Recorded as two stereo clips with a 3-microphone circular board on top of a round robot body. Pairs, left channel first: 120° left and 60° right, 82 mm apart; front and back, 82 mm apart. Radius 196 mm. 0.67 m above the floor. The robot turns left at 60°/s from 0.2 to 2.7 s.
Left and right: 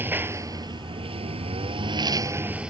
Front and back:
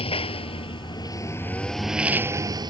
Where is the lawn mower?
5° left; by 2.7 s 145° right.